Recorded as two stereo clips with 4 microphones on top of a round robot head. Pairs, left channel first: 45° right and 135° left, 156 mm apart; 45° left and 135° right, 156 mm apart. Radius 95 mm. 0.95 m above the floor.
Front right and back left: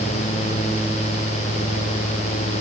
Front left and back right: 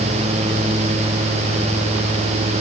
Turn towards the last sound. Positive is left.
No sound to turn to.